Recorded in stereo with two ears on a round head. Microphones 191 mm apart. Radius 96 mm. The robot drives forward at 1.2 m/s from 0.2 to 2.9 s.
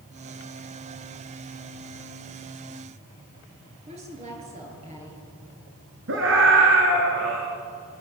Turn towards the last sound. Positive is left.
turn(degrees=-60)  # may be behind; listen again after turning